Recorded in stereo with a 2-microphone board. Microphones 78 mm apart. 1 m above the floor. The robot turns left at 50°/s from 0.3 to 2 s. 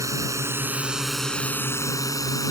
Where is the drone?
45° right (ahead or behind); by 2.5 s 45° left (ahead or behind).